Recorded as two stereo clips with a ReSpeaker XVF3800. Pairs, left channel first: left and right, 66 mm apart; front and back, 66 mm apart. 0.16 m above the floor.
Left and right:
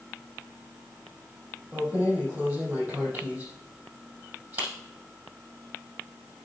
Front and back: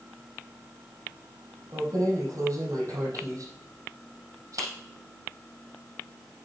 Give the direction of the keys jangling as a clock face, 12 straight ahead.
5 o'clock.